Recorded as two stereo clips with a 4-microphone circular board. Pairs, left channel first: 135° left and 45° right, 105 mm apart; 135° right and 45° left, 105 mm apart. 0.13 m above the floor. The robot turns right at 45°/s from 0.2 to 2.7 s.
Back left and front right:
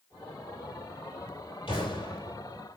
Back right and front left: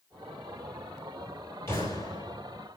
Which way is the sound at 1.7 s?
160° left.